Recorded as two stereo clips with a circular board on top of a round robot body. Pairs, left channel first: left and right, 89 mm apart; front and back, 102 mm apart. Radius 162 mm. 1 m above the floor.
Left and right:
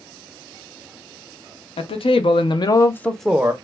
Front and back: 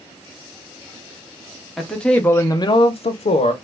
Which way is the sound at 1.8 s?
90° left.